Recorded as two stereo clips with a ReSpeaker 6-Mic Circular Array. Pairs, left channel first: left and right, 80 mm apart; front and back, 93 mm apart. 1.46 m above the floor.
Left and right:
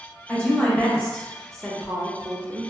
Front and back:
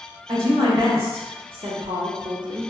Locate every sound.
0.3 s a woman speaking: 165° left, 1.6 m; by 2.7 s 130° right, 0.5 m